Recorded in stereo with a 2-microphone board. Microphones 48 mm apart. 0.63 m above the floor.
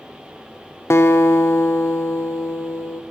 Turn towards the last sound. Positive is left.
turn(degrees=65)  # may be behind; listen again after turning